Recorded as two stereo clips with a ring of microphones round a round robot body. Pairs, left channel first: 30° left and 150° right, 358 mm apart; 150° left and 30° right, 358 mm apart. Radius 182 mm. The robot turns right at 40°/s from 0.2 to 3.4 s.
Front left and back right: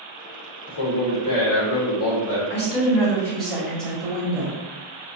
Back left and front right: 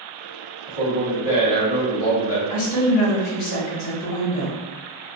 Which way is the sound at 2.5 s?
85° left.